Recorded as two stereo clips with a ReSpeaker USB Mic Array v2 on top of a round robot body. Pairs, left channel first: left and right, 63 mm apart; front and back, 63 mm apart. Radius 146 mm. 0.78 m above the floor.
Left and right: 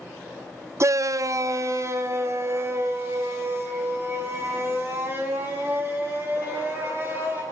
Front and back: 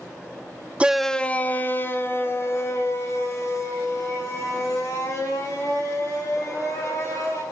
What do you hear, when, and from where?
0.8 s a shout: 115° right, 0.6 m; by 7.4 s 40° right, 9 m